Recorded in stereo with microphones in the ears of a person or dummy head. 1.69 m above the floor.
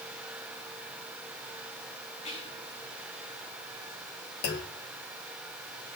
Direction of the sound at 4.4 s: 50° left (ahead or behind).